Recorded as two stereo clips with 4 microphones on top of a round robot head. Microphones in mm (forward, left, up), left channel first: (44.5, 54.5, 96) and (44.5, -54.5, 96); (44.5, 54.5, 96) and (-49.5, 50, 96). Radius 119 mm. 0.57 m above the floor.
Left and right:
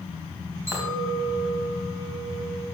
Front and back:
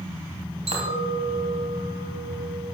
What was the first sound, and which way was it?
A clink, 160° right.